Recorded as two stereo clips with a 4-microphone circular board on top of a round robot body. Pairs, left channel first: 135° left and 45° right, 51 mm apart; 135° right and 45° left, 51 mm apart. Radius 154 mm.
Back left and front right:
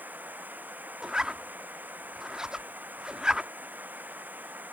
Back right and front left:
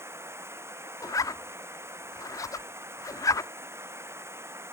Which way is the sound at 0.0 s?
10° left.